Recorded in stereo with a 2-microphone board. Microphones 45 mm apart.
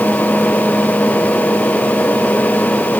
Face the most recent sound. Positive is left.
No sound to turn to.